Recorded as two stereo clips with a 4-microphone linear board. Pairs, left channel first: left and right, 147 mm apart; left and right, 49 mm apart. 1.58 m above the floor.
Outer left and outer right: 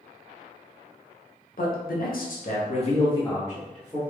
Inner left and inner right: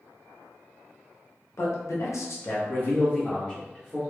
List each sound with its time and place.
1.6 s a man speaking: 75° left (ahead or behind), 0.8 m; by 4.0 s 10° left (ahead or behind), 1.0 m